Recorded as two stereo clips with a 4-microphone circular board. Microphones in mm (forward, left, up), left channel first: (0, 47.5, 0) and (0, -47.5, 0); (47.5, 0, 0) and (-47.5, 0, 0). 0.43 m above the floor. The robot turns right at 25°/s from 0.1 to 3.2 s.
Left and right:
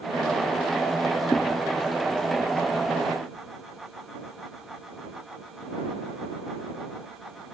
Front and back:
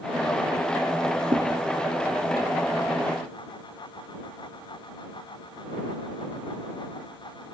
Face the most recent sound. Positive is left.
turn(degrees=-165)